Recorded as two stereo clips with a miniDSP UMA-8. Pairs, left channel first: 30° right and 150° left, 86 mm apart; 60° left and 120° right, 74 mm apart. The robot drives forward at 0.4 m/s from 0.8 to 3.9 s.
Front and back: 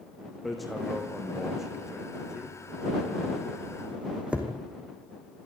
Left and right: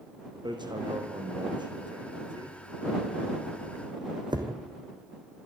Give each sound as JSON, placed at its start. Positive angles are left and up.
{"t": 0.5, "sound": "hammering", "azimuth_deg": -120, "distance_m": 4.0}